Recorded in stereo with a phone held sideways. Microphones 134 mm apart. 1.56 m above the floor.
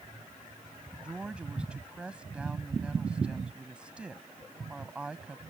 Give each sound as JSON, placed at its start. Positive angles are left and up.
{"t": 1.0, "sound": "a woman speaking", "side_deg": -5}